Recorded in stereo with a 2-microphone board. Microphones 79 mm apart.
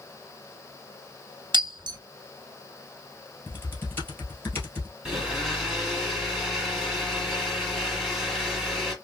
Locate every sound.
1.5 s breaking glass: 80° right, 0.8 m
3.5 s typing on a keyboard: 30° left (ahead or behind), 1.6 m
5.0 s a blender: 5° right (ahead or behind), 3 m